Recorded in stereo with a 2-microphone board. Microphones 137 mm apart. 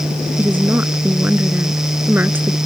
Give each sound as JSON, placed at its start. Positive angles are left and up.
{"t": 0.4, "sound": "a woman speaking", "side_deg": -15}